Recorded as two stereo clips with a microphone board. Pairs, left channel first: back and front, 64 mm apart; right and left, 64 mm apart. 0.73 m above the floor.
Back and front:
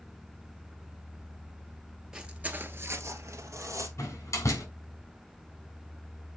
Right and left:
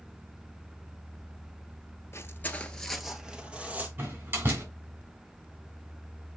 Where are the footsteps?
75° right, 0.9 m; by 3.9 s 25° left, 1.4 m.